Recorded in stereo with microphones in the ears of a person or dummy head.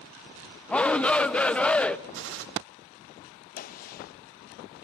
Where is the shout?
5° left (ahead or behind), 0.8 m.